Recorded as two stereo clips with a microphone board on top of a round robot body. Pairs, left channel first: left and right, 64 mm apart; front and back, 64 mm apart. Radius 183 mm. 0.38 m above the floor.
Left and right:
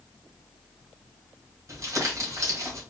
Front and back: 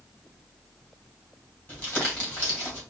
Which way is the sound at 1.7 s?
55° right.